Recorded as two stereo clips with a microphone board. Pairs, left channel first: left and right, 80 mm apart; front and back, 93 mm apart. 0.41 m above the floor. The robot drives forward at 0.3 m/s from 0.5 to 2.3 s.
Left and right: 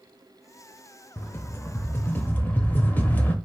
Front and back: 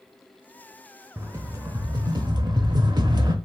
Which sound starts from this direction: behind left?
A rattle, at 1.2 s.